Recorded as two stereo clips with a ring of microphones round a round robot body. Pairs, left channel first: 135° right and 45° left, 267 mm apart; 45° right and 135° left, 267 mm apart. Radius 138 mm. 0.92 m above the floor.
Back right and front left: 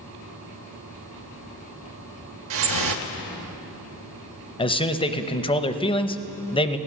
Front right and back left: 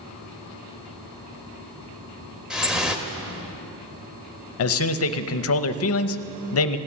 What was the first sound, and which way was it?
Dripping, 50° left.